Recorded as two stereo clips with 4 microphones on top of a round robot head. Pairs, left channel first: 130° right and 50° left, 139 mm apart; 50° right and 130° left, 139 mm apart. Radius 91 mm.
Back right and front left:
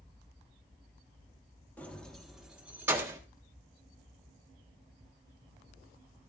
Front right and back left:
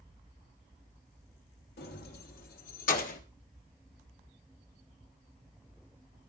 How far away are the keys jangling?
About 1.6 m.